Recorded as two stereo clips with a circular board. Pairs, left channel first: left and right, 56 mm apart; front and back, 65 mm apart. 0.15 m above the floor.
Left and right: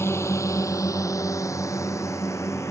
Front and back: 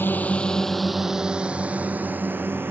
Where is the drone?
55° left; by 2.7 s 125° left.